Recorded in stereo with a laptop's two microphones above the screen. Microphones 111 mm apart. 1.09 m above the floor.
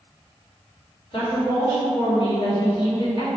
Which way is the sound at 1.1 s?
50° left (ahead or behind).